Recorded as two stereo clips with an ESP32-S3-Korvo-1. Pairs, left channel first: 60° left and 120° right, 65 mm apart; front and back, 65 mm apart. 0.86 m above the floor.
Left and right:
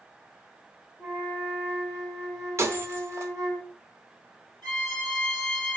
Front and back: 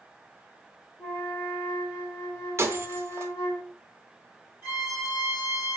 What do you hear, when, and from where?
1.0 s a flute: 115° right, 3.5 m
2.6 s breaking glass: 150° right, 0.6 m
4.6 s a violin: 115° right, 3.5 m